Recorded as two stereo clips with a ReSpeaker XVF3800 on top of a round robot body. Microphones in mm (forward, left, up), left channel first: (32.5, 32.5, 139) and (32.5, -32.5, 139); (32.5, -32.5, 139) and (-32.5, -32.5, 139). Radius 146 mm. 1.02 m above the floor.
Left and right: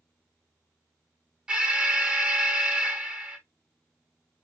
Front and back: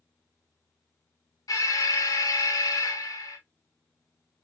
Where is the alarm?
15° right, 1.0 m.